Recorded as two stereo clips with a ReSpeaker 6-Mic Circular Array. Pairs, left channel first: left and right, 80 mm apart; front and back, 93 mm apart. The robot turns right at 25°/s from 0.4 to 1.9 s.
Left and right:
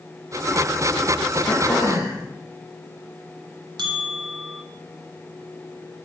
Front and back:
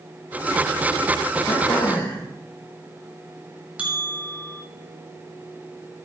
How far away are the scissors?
No scissors in this recording.